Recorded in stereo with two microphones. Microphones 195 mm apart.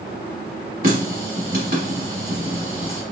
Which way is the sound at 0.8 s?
50° right (ahead or behind).